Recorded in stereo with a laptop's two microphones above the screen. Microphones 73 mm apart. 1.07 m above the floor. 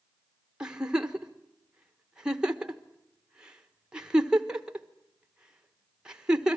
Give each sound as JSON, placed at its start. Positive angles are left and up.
{"t": 0.6, "sound": "a giggle", "side_deg": -10, "distance_m": 1.3}